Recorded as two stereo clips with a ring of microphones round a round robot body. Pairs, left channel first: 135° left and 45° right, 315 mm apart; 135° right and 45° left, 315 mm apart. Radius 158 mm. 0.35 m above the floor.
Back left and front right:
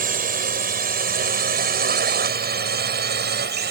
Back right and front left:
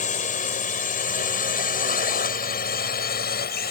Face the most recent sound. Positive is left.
turn(degrees=-90)